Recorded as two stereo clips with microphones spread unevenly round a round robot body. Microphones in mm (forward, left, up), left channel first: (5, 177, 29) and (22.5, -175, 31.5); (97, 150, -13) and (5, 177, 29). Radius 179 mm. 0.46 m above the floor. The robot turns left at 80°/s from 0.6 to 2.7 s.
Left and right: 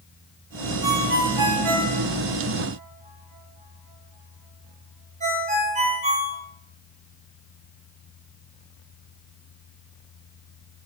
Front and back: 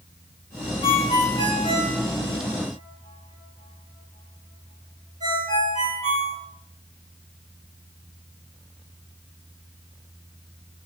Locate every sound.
0.8 s a ringtone: 5° right, 2.5 m; by 6.4 s 160° right, 2.5 m